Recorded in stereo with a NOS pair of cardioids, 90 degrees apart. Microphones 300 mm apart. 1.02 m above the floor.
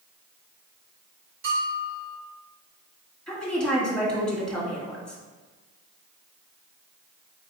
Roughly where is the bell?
Ahead right.